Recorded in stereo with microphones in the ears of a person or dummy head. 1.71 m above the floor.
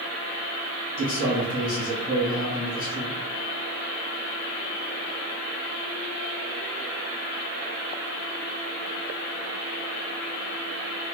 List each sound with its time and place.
1.0 s a man speaking: 50° left (ahead or behind), 1.9 m